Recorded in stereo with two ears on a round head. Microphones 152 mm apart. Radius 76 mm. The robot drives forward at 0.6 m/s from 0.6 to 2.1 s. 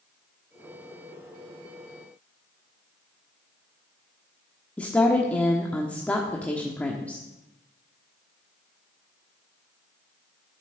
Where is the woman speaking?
10° left (ahead or behind), 1.2 m.